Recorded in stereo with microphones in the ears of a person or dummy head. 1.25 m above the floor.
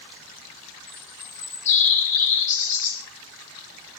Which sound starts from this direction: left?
A bird, at 0.9 s.